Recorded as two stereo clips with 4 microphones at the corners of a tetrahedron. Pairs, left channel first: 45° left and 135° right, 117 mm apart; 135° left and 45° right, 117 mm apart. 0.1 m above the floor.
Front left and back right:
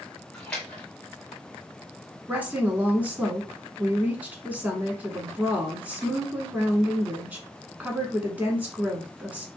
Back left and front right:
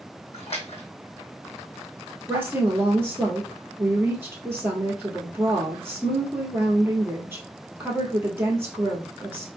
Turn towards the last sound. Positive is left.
turn(degrees=-80)